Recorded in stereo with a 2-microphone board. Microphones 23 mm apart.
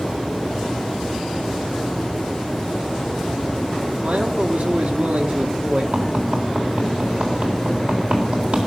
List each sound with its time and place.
4.0 s a man speaking: 70° right (ahead or behind), 2 m
5.9 s tapping: 65° right (ahead or behind), 3.5 m